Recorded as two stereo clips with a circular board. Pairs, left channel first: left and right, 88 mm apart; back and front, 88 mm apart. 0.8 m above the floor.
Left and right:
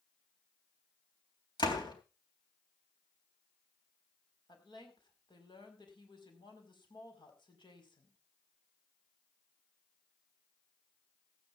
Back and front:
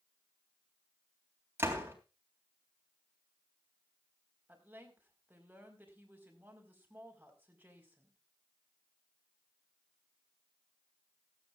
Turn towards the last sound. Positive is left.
turn(degrees=70)